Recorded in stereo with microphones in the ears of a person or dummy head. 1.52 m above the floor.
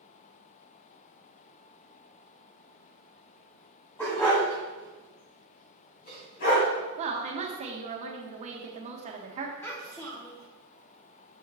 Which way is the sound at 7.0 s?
30° right (ahead or behind).